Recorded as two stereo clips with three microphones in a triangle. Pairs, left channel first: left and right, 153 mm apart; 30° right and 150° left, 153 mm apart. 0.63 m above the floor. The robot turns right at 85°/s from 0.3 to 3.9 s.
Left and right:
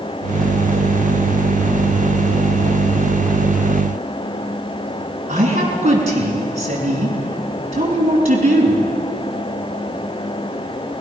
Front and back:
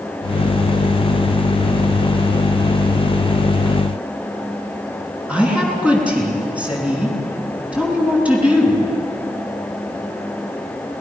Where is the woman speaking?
130° right, 6 m.